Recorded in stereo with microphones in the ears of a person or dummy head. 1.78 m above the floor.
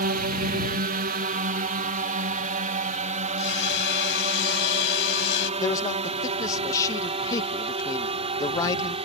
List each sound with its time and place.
0.0 s a drone: 45° right (ahead or behind); by 9.1 s 30° right (ahead or behind)
3.4 s hammering: 75° left (ahead or behind)
5.6 s a man speaking: 25° left (ahead or behind)